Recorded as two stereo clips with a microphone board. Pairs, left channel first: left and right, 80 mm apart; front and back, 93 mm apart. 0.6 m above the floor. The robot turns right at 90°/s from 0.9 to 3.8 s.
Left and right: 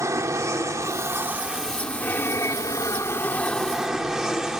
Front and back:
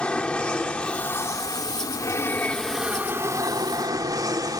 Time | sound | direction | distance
0.0 | an aircraft | 70° right | ?